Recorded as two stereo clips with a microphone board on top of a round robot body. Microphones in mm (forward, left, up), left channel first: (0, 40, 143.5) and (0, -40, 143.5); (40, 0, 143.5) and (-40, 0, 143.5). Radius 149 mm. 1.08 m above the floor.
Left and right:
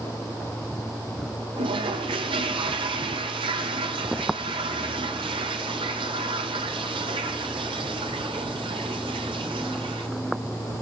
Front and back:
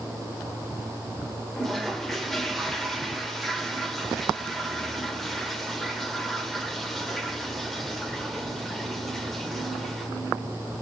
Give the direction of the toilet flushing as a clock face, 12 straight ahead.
3 o'clock.